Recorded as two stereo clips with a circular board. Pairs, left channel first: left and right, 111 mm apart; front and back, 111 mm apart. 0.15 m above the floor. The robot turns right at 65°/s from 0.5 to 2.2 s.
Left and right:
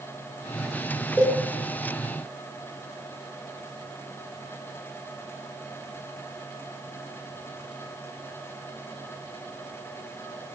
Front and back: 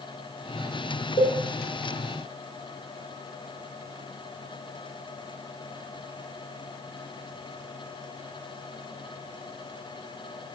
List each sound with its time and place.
1.2 s a cowbell: 15° left, 0.9 m; by 1.4 s 30° left, 0.9 m